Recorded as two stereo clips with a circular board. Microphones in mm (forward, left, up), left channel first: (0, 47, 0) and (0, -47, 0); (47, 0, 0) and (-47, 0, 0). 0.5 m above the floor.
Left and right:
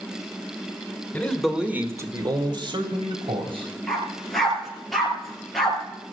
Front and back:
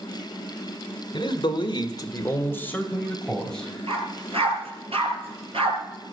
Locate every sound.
1.1 s a man speaking: 20° left, 1.7 m; by 3.7 s 85° right, 3.5 m
3.9 s a dog barking: straight behind, 3.5 m